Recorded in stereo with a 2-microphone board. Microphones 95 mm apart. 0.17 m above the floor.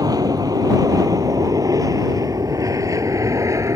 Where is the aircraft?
40° right (ahead or behind); by 3.8 s 35° right (ahead or behind).